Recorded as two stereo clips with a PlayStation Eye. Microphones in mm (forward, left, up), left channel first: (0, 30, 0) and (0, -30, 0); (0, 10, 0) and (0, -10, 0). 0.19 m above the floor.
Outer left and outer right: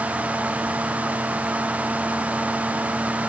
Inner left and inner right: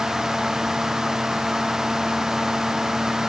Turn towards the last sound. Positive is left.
No sound to turn to.